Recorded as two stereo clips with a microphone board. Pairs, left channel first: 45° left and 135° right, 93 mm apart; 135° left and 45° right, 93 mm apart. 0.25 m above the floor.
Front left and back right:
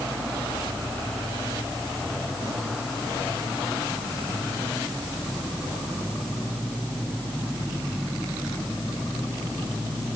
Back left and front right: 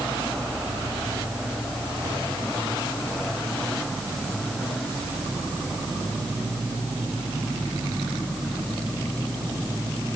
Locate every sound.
Only background noise.